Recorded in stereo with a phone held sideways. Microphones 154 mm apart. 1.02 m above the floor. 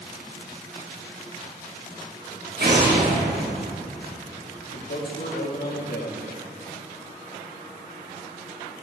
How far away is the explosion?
About 1.6 m.